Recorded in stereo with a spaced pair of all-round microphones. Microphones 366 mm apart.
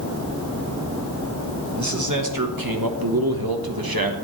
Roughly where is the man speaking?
Right.